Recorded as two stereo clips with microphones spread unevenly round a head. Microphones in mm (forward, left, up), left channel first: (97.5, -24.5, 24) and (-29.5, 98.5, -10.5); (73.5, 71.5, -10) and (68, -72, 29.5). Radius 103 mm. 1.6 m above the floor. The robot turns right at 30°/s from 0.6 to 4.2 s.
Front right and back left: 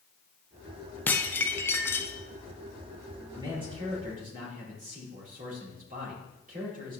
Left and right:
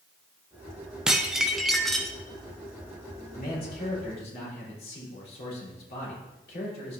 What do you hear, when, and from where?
1.1 s dishes clattering: 70° right, 0.5 m; by 2.1 s 40° right, 0.5 m
3.3 s a man speaking: 65° left, 4 m; by 7.0 s 95° left, 4 m